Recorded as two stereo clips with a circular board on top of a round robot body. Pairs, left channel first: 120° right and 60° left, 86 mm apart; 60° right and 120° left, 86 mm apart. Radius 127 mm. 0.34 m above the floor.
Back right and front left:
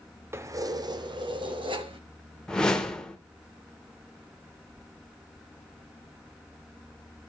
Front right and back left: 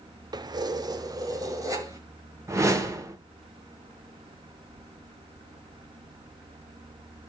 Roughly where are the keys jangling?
Left.